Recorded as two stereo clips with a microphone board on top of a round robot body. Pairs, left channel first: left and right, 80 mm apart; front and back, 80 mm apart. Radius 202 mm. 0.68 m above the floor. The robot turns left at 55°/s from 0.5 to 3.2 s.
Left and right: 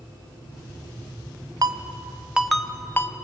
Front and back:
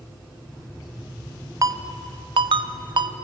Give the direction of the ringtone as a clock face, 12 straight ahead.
4 o'clock.